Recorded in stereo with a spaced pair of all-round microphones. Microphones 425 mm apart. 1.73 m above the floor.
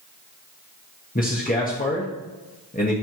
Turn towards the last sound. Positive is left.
turn(degrees=20)  # may be behind; listen again after turning